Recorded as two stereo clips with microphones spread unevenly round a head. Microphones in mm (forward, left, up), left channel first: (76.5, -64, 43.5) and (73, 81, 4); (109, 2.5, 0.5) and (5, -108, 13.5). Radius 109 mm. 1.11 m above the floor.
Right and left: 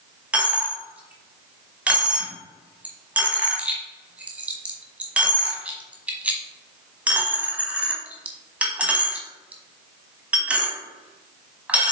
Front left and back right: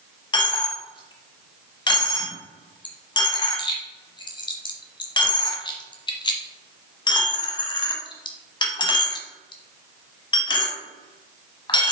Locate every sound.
0.3 s a dropped coin: 5° right, 1.2 m